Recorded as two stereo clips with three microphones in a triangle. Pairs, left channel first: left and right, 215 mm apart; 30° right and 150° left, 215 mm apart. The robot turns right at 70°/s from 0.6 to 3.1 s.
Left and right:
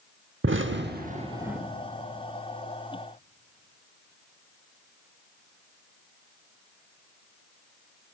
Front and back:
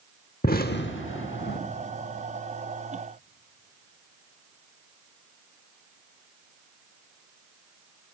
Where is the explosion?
75° right, 0.8 m; by 1.6 s 5° right, 0.8 m.